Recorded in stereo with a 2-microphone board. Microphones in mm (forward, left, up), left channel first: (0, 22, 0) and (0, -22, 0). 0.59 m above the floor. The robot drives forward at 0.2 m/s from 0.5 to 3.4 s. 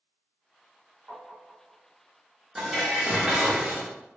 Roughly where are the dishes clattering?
Centre.